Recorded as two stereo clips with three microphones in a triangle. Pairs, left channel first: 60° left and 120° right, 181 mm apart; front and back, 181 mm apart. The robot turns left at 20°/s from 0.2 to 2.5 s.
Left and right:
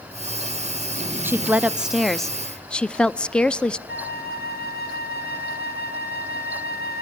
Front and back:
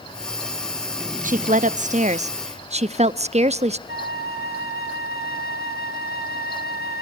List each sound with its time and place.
1.2 s a woman speaking: 170° left, 0.7 m; by 3.8 s 145° left, 0.7 m
3.9 s a flute: 30° left, 2.5 m